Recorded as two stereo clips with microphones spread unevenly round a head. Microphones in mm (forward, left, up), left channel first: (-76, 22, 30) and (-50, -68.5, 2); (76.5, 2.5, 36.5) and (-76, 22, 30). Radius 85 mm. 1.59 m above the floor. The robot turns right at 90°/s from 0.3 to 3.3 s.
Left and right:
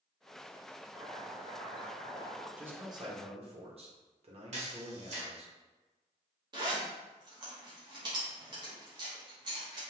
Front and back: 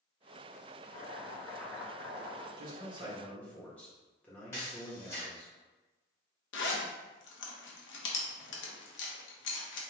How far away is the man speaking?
About 1.3 m.